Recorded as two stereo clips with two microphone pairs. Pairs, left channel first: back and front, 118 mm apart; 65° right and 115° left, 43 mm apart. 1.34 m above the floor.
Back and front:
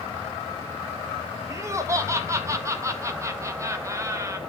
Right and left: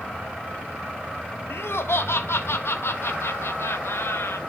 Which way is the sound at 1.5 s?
65° right.